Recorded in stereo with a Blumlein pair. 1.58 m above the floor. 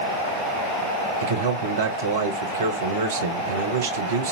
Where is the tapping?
No tapping in this recording.